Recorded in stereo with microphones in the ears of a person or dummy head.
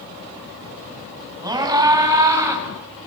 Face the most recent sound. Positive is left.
turn(degrees=-15)  # may be behind; listen again after turning